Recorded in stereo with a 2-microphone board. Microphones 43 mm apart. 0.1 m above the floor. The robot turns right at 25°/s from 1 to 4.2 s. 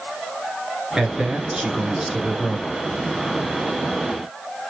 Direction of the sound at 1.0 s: 20° right (ahead or behind).